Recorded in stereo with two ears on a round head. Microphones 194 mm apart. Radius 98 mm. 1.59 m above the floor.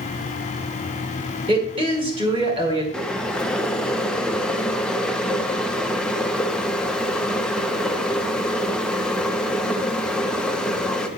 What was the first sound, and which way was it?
A woman speaking, 25° right (ahead or behind).